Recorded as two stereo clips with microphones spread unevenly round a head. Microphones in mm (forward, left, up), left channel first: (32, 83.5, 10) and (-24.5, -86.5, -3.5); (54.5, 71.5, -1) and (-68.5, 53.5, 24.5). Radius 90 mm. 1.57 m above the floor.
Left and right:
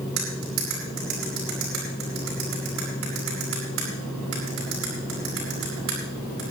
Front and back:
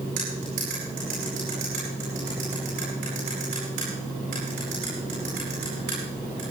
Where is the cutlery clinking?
125° right, 9 m.